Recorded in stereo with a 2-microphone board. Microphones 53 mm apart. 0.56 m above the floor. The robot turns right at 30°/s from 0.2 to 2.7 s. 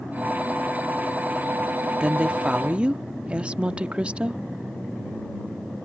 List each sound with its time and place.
2.0 s a woman speaking: 20° right (ahead or behind)